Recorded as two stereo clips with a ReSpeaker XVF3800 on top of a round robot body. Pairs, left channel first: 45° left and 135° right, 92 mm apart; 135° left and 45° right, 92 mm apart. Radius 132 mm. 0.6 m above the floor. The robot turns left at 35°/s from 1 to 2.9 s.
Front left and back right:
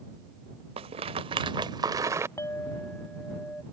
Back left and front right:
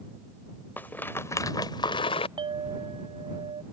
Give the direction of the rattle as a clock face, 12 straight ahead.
5 o'clock.